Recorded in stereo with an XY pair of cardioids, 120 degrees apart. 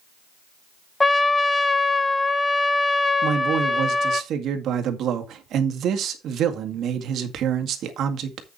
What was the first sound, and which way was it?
A trumpet, 15° left.